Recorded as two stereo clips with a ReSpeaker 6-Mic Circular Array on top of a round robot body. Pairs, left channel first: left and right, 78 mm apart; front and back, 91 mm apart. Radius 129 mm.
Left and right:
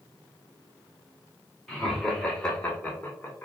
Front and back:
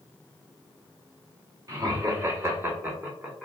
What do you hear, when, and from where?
1.7 s laughter: straight behind, 1.5 m; by 3.5 s 105° left, 1.3 m